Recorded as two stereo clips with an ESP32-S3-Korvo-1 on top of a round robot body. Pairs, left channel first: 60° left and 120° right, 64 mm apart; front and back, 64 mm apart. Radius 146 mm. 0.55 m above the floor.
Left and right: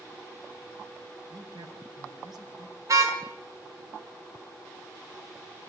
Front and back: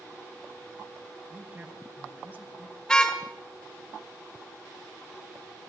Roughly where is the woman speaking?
Behind right.